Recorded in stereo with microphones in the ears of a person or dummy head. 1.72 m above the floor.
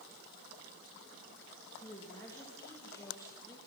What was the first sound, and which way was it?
A woman speaking, 15° left (ahead or behind).